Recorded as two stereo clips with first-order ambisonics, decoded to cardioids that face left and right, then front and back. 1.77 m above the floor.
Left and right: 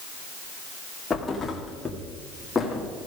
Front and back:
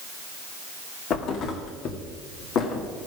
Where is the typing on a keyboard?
No typing on a keyboard in this recording.